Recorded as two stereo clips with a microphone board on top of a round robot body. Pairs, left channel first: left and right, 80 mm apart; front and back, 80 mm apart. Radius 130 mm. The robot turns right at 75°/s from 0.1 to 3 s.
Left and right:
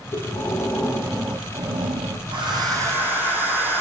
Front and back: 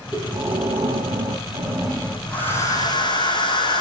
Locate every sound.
0.1 s breathing: 110° left, 3.5 m; by 2.2 s 95° right, 3.5 m
2.3 s a hair dryer: 75° right, 9.5 m; by 3.8 s 25° right, 9.5 m